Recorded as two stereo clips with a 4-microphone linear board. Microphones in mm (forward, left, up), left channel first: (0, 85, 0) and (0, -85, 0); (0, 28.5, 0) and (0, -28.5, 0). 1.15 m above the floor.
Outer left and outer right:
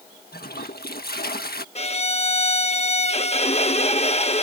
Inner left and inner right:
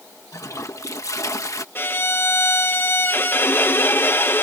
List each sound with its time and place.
0.3 s a toilet flushing: 65° left (ahead or behind)
1.8 s a violin: 40° left (ahead or behind)